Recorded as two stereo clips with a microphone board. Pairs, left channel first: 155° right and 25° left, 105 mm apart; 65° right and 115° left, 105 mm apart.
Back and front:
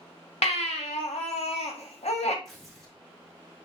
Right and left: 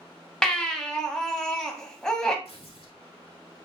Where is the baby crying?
150° right, 0.8 m.